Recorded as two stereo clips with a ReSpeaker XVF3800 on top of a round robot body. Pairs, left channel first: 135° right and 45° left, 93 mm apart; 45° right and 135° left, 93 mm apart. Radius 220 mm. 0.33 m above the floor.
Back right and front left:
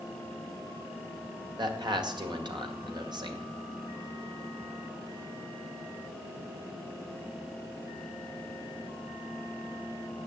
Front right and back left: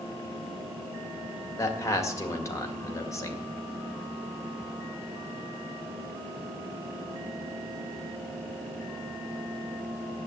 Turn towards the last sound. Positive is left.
turn(degrees=10)